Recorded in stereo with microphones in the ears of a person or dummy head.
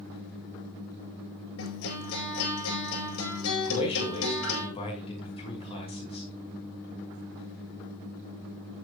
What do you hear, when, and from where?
1.6 s a guitar: 75° left (ahead or behind), 7 m
3.7 s a man speaking: 30° left (ahead or behind), 6 m